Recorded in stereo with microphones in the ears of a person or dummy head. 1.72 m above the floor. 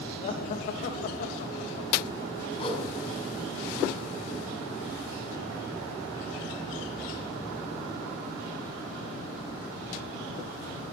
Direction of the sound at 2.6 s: 35° left (ahead or behind).